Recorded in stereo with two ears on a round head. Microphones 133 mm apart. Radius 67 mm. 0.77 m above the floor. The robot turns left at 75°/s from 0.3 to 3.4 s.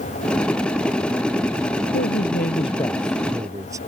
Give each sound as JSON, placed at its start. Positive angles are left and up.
{"t": 1.9, "sound": "a man speaking", "azimuth_deg": 90}